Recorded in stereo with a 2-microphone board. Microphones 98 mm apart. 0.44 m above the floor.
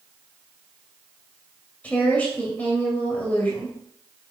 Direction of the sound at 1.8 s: 15° left (ahead or behind).